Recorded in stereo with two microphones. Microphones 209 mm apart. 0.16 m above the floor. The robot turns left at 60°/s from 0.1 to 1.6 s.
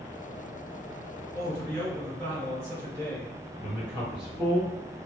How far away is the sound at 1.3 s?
About 1.9 m.